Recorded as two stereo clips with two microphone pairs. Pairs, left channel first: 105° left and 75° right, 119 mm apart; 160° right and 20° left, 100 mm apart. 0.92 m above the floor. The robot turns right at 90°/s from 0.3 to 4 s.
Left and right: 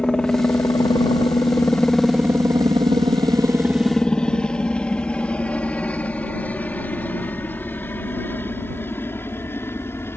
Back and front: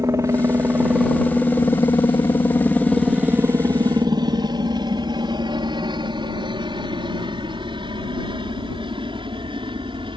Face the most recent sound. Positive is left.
turn(degrees=35)